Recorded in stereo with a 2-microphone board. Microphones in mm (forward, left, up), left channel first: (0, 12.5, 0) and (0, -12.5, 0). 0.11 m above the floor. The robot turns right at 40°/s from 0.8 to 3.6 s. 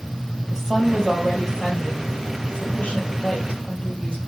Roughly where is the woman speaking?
Ahead.